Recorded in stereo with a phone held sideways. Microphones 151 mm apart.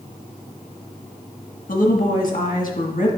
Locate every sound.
1.7 s a woman speaking: 65° left (ahead or behind), 1.5 m